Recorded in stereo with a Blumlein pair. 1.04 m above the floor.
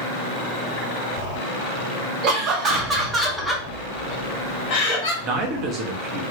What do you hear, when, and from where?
2.2 s laughter: 35° right, 1.5 m; by 5.1 s 40° left, 1.7 m
5.2 s a man speaking: 35° right, 1.1 m